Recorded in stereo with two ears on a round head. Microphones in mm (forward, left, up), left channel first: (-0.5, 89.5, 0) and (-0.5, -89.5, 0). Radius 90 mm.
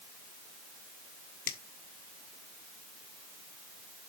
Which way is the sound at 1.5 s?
45° left (ahead or behind).